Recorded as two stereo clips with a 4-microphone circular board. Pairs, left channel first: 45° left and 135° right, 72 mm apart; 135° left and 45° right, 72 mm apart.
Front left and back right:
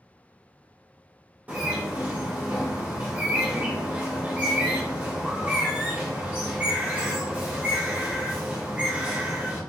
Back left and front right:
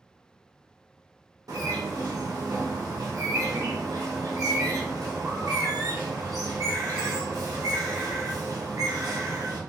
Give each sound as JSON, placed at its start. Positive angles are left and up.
{"t": 1.5, "sound": "a bird", "azimuth_deg": -70, "distance_m": 1.5}